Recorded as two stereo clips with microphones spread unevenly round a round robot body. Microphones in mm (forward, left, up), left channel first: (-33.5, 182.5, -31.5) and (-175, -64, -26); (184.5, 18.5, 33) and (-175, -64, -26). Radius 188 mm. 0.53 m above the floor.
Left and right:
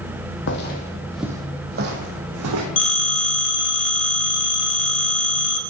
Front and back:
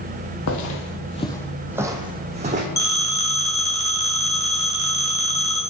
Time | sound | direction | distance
0.5 | footsteps | 35° left | 0.7 m
2.8 | a phone ringing | 95° left | 1.3 m